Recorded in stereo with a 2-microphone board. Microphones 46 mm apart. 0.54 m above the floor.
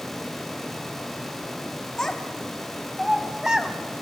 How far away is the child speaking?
About 1.8 m.